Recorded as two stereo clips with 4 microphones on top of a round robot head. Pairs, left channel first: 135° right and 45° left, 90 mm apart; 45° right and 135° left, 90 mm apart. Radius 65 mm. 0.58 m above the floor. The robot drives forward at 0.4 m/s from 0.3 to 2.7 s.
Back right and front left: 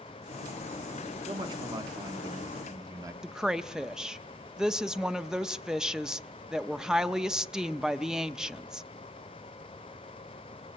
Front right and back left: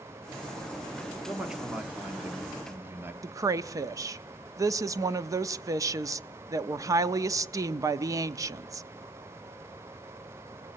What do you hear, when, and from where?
1.3 s a man speaking: 50° left, 1.6 m; by 3.1 s 75° left, 1.4 m
3.2 s a woman speaking: 125° left, 0.7 m